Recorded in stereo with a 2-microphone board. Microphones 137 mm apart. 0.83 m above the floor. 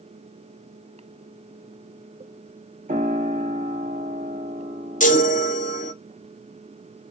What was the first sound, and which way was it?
A piano, 85° right.